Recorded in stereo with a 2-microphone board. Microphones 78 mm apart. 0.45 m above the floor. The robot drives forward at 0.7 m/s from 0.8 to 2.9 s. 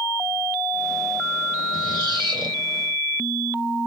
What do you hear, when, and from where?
1.7 s a squeak: 85° right, 2.5 m; by 2.6 s 75° right (ahead or behind), 2.5 m